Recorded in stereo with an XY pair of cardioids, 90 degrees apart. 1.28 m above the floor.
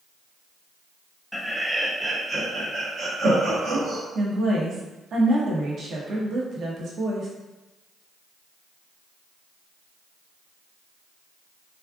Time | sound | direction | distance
1.3 | laughter | straight ahead | 0.8 m
4.2 | a woman speaking | 60° right | 1.1 m